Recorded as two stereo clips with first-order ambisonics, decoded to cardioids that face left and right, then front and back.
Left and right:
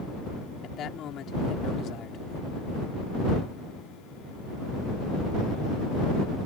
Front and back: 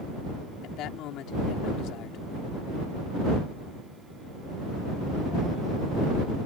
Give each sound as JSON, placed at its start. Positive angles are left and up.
{"t": 0.6, "sound": "a man speaking", "azimuth_deg": 40}